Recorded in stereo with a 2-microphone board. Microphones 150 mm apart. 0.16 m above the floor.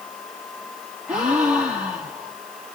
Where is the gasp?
5° right (ahead or behind), 6.5 m.